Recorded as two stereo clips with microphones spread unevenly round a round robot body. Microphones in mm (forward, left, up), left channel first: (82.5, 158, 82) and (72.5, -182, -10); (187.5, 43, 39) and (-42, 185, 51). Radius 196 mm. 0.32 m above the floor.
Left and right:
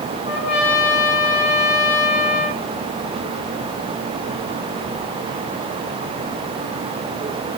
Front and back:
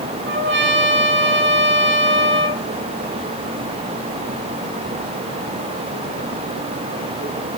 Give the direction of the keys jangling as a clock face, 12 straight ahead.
I don't hear keys jangling.